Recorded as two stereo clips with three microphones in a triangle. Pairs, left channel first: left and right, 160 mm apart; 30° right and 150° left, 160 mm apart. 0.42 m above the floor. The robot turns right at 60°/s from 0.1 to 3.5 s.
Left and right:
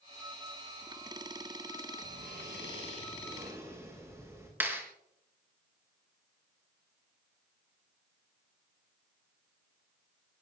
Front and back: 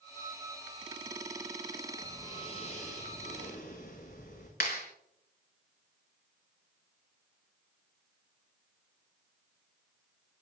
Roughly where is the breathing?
Right.